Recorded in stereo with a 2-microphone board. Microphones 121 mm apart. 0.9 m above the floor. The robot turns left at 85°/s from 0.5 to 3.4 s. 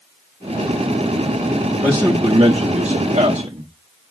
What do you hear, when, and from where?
1.8 s a man speaking: straight ahead, 1.4 m; by 3.7 s 135° right, 1.4 m